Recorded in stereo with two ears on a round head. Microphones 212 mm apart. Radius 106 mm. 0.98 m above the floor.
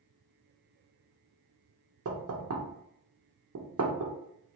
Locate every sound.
2.0 s knocking: 65° right (ahead or behind), 0.8 m